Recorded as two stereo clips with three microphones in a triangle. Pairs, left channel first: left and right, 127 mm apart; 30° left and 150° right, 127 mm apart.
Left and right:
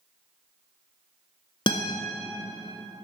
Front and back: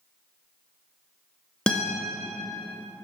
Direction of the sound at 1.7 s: 110° left.